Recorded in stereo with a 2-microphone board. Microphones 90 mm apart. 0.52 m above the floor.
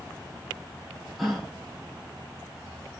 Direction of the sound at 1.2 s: Centre (ahead or behind).